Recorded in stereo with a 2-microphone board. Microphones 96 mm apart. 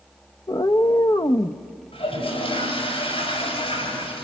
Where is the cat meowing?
50° left (ahead or behind), 0.7 m.